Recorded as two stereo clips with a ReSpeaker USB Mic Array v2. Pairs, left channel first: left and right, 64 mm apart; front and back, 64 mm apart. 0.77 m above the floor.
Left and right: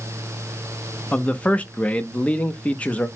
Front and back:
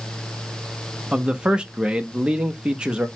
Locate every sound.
1.1 s a man speaking: 125° left, 0.6 m